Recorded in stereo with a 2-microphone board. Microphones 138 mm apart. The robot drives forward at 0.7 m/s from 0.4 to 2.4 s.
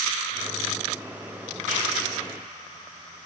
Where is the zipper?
90° right, 4.5 m; by 1.8 s 85° right, 4.5 m.